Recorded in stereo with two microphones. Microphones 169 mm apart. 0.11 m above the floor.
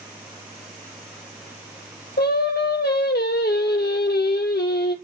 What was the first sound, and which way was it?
Singing, 80° left.